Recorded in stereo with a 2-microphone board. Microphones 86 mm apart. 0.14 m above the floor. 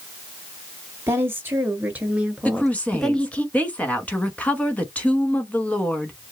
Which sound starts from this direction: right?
A woman speaking, at 1.1 s.